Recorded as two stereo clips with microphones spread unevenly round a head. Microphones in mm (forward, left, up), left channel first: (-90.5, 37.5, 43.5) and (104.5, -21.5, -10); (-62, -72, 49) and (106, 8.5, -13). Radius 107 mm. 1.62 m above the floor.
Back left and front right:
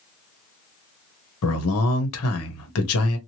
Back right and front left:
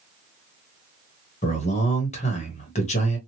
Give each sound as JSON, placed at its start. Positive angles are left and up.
{"t": 1.4, "sound": "a man speaking", "azimuth_deg": 145, "distance_m": 1.1}